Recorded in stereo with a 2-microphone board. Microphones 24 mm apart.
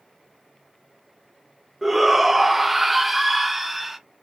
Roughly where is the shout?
Centre.